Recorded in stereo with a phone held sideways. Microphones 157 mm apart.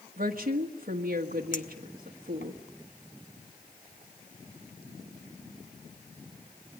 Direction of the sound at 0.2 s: 60° right (ahead or behind).